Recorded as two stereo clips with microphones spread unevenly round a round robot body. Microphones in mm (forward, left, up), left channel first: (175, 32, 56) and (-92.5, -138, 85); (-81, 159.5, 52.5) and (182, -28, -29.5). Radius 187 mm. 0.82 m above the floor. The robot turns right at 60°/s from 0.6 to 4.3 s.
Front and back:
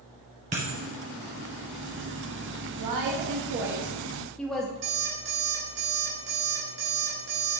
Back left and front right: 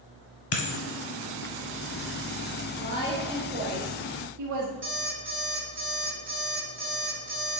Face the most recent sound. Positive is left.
turn(degrees=-95)